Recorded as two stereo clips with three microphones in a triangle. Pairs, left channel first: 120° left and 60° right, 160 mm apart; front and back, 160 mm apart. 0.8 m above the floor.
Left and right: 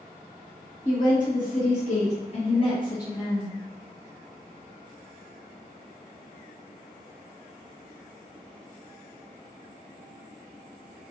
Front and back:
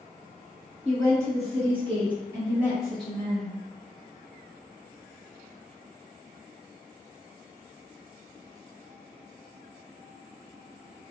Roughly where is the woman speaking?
Behind left.